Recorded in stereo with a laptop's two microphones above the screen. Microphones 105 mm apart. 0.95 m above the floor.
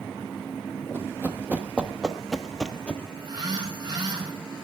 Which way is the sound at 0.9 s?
20° right (ahead or behind).